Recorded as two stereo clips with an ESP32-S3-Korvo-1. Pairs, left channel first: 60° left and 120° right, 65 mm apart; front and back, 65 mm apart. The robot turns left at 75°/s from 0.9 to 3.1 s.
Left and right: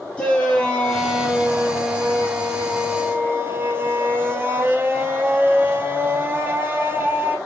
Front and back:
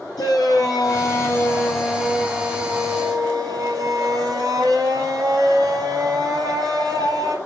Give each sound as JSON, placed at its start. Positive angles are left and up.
{"t": 0.2, "sound": "a shout", "azimuth_deg": -15, "distance_m": 4.5}